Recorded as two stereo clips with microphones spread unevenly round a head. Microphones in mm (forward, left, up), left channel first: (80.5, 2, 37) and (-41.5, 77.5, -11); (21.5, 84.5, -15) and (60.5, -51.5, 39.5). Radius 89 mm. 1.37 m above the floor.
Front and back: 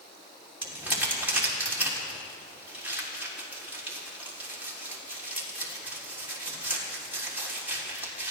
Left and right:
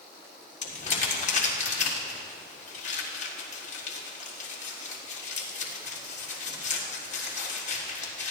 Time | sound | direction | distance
0.6 | crumpling | 70° left | 3.5 m